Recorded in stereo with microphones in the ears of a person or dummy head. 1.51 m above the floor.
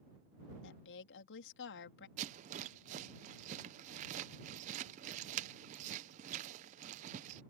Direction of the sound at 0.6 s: 65° left (ahead or behind).